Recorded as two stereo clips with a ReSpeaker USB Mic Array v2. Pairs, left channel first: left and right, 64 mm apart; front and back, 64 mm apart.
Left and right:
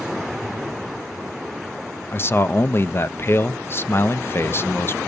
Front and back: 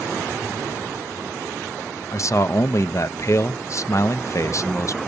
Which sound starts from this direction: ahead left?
A man speaking, at 2.1 s.